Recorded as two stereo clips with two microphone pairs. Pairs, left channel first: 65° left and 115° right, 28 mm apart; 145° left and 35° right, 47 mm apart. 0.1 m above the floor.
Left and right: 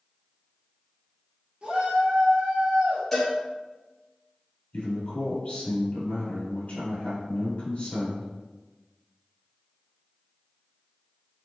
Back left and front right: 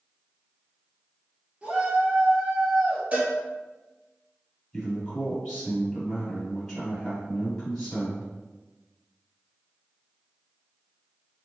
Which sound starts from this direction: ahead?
A cowbell, at 3.1 s.